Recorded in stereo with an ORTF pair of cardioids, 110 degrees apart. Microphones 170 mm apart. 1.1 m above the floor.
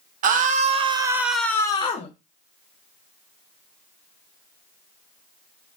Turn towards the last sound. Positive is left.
turn(degrees=40)